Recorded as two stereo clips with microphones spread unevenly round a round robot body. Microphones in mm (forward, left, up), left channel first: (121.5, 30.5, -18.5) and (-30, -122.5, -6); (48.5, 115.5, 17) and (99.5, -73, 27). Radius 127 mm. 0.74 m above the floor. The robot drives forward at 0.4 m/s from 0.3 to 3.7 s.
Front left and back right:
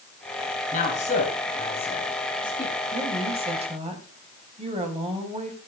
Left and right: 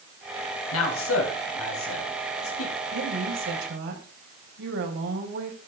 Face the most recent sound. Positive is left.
turn(degrees=-75)